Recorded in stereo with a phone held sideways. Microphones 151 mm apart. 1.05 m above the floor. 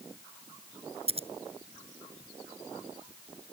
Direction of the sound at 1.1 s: 40° right (ahead or behind).